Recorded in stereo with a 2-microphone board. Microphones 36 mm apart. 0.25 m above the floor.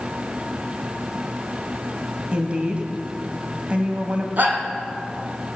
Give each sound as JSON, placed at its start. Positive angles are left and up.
{"t": 2.3, "sound": "a woman speaking", "side_deg": -35, "distance_m": 1.1}
{"t": 4.4, "sound": "a shout", "side_deg": -55, "distance_m": 2.5}